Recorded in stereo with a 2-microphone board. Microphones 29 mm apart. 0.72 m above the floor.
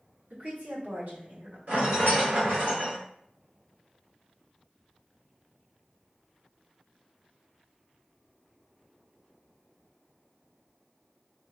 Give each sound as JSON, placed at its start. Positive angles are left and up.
{"t": 0.3, "sound": "a woman speaking", "side_deg": -65, "distance_m": 1.3}
{"t": 1.7, "sound": "a rattle", "side_deg": -75, "distance_m": 1.8}